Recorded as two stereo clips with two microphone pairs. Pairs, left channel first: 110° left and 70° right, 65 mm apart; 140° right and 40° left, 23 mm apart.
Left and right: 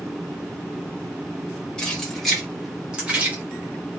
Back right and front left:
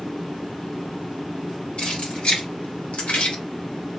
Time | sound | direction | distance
1.8 | keys jangling | 175° right | 1.6 m